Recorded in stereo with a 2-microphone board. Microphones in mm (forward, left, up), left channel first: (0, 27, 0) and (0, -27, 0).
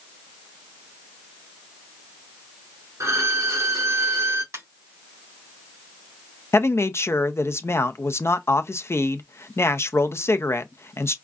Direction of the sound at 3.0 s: 70° right (ahead or behind).